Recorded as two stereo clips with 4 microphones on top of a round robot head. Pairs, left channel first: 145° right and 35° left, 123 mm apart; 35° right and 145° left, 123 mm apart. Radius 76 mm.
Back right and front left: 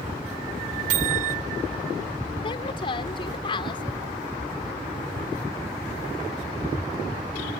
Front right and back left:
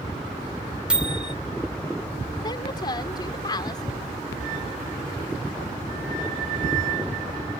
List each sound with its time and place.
0.9 s a microwave: 65° left
2.4 s a woman speaking: 95° right